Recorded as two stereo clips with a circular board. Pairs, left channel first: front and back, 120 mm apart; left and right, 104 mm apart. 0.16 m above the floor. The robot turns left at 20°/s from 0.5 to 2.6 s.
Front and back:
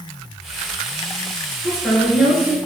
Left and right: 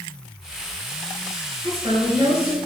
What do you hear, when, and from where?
1.6 s a woman speaking: 95° right, 3 m; by 2.6 s 115° right, 3 m